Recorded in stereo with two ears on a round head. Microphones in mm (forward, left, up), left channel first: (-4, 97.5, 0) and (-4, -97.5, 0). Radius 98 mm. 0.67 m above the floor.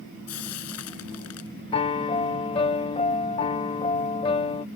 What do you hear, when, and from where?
0.3 s frying: 80° left
1.7 s a piano: 25° left (ahead or behind)